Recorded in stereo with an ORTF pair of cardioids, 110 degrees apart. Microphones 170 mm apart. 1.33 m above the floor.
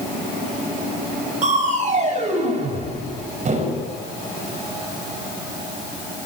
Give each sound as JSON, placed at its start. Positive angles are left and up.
{"t": 1.4, "sound": "crushing", "azimuth_deg": -45, "distance_m": 5.5}